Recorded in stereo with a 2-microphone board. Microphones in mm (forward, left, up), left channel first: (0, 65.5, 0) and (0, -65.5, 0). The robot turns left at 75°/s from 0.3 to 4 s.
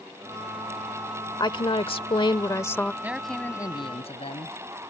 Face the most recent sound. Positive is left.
turn(degrees=125)